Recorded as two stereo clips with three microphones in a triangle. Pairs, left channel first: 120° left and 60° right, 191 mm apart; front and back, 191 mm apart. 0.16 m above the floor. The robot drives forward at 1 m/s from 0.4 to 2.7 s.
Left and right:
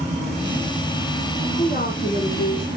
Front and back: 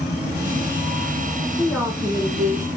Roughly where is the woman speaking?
Left.